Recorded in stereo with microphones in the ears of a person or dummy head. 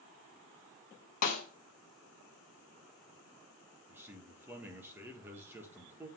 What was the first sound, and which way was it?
A snare drum, 45° left (ahead or behind).